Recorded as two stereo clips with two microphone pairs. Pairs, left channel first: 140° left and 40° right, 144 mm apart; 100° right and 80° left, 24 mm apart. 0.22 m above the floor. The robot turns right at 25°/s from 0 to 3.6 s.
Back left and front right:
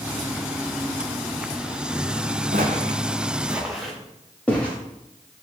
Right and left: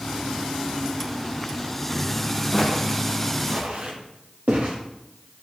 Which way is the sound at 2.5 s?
25° right.